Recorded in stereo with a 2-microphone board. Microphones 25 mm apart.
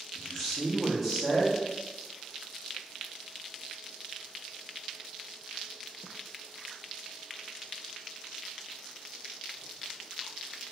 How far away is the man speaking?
About 0.8 m.